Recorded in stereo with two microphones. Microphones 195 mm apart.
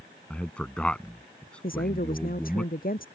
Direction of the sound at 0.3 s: 5° left (ahead or behind).